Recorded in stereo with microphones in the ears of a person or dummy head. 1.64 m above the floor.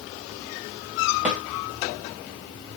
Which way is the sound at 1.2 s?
10° right (ahead or behind).